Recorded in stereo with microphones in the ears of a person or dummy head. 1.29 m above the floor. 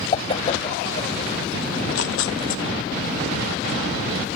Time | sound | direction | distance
0.1 | a whoosh | 35° left (ahead or behind) | ?
1.7 | tearing paper | 75° left (ahead or behind) | ?